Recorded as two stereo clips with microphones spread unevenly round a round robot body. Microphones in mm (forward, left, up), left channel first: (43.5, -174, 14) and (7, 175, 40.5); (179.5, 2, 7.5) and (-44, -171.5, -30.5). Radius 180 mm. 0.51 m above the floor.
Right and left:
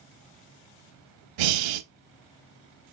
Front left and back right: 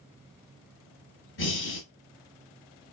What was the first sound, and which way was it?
Breathing, 95° left.